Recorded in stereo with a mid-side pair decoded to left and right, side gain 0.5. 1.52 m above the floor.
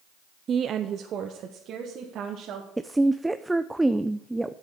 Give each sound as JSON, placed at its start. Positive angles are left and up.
{"t": 0.5, "sound": "a woman speaking", "azimuth_deg": -45, "distance_m": 0.5}
{"t": 2.8, "sound": "a woman speaking", "azimuth_deg": -10, "distance_m": 0.6}